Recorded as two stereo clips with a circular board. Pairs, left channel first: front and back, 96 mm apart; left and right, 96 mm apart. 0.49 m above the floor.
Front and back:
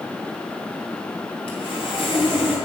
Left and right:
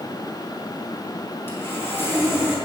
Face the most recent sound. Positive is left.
turn(degrees=25)